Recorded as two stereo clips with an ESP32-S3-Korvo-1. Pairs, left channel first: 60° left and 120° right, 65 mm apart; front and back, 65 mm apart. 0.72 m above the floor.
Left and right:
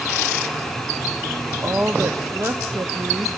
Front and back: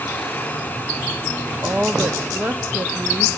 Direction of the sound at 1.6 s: 135° right.